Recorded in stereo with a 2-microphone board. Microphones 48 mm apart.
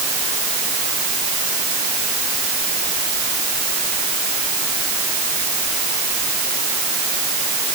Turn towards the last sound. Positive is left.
No sound to turn to.